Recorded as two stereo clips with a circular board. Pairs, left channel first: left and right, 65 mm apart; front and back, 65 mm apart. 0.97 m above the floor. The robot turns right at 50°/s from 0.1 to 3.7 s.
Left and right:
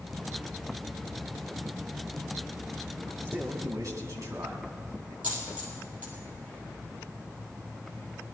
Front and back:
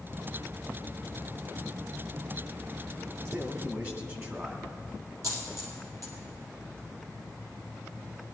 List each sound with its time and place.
3.2 s a man speaking: 150° right, 2 m; by 5.1 s 130° right, 2 m
5.2 s a dropped coin: 155° right, 3.5 m